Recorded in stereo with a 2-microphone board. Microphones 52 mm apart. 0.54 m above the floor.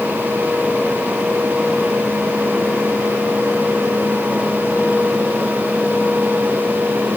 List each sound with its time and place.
Only background noise.